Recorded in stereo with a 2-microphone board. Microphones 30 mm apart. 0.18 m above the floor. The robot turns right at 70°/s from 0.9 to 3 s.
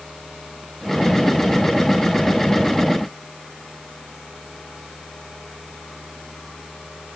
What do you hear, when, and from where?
Only background noise.